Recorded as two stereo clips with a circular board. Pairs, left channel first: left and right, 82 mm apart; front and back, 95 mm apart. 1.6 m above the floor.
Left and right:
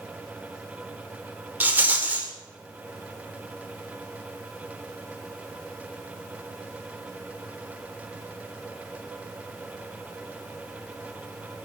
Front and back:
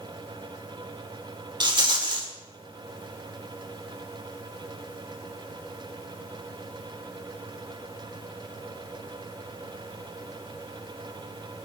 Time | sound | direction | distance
1.6 | a rattle | 155° right | 2 m